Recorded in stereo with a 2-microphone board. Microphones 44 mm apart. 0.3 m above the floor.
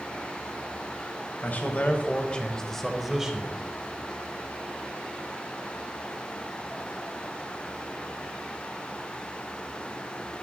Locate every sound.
1.4 s a man speaking: 45° left (ahead or behind), 1.7 m; by 3.6 s 20° right (ahead or behind), 1.5 m